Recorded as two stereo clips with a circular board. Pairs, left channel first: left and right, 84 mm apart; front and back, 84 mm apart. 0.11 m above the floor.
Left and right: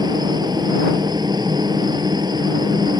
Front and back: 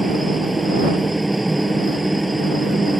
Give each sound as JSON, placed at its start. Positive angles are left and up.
{"t": 0.0, "sound": "a helicopter", "azimuth_deg": -90}